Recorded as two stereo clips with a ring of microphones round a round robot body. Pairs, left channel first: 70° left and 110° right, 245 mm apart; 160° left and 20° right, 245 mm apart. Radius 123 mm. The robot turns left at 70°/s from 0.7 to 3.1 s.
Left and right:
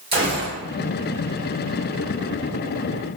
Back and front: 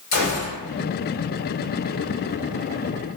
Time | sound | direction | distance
0.1 | a gunshot | straight behind | 1.5 m